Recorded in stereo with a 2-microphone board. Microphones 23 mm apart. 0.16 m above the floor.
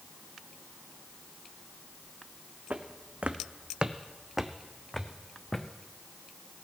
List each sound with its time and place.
2.7 s footsteps: 80° right, 0.9 m; by 5.7 s 20° left (ahead or behind), 1.1 m